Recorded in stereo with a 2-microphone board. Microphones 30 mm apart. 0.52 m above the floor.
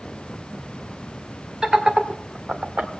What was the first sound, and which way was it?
Laughter, 20° right (ahead or behind).